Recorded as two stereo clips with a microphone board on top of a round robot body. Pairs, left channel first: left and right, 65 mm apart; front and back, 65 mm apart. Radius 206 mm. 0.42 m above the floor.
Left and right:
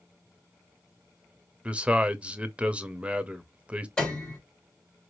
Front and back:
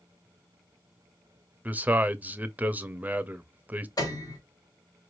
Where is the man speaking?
145° right, 0.9 m.